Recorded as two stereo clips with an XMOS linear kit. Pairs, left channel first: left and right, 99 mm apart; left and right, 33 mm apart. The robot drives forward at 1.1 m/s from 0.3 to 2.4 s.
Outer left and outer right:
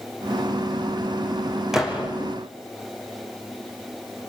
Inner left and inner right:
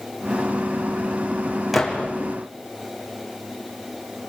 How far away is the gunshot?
About 4.5 m.